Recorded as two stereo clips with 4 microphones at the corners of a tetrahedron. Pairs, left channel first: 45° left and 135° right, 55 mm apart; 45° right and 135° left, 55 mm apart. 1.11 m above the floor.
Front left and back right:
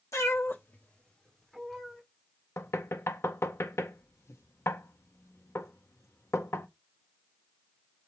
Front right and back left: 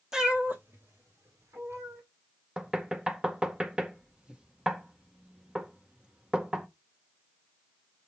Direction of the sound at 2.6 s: 65° left.